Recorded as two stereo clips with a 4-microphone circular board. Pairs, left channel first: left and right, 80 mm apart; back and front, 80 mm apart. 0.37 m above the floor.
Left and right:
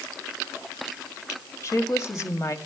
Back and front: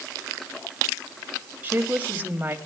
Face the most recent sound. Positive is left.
turn(degrees=60)